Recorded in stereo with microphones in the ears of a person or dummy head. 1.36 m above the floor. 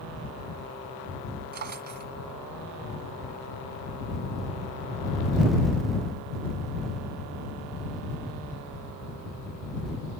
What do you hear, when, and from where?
1.5 s a drawer: 55° right (ahead or behind)